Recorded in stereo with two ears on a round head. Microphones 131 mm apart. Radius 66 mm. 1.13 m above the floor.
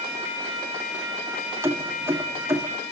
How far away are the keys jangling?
About 1.7 m.